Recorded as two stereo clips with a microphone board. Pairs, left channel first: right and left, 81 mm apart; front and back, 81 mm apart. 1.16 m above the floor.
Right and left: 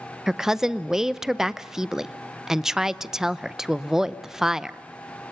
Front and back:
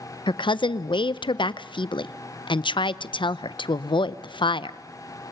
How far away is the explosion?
No explosion in this recording.